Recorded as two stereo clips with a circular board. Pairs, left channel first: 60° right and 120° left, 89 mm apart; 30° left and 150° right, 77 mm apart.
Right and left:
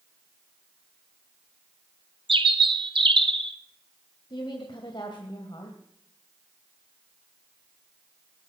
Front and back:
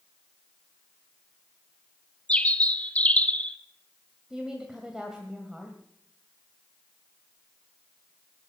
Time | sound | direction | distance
2.3 | a bird | 100° left | 0.9 m
4.3 | a woman speaking | 70° right | 2.0 m